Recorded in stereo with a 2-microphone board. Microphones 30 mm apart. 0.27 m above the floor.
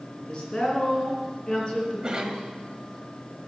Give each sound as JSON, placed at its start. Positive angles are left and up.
{"t": 0.3, "sound": "a woman speaking", "side_deg": 35, "distance_m": 3.5}
{"t": 2.0, "sound": "a cough", "side_deg": -30, "distance_m": 1.3}